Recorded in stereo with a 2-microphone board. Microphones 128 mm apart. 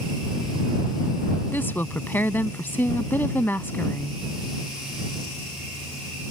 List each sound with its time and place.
1.5 s a woman speaking: 15° left (ahead or behind)